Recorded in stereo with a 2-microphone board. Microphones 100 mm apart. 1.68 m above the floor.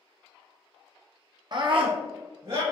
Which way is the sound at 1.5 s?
50° right (ahead or behind).